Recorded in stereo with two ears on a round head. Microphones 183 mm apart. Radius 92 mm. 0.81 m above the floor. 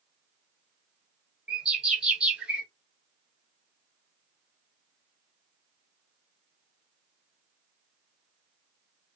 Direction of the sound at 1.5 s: 5° right (ahead or behind).